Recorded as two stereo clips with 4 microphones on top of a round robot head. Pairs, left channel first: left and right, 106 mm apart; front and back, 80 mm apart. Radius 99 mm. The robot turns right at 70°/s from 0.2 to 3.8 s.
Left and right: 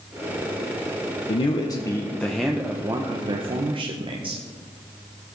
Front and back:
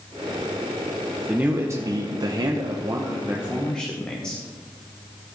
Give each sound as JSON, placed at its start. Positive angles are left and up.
{"t": 1.3, "sound": "a man speaking", "azimuth_deg": 105, "distance_m": 1.2}